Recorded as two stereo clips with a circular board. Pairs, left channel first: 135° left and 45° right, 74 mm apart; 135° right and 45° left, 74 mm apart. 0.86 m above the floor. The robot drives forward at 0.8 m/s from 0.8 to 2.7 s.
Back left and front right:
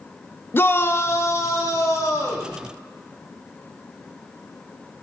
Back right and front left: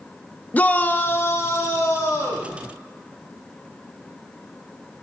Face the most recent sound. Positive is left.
turn(degrees=180)